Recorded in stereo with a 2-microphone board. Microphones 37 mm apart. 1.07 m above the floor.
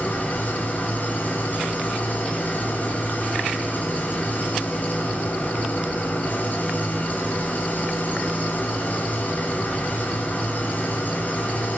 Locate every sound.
0.0 s an engine running: 50° left (ahead or behind), 8.5 m